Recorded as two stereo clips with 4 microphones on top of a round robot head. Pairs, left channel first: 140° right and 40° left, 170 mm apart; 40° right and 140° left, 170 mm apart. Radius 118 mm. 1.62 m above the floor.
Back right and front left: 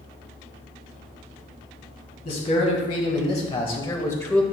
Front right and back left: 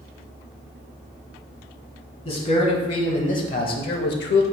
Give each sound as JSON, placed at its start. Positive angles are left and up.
{"t": 2.2, "sound": "a man speaking", "azimuth_deg": -95, "distance_m": 1.9}